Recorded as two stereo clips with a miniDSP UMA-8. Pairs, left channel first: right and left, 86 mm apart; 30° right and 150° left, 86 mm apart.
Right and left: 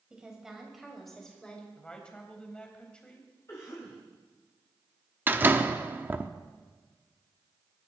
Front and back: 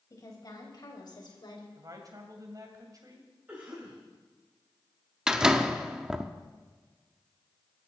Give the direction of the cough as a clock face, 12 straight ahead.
5 o'clock.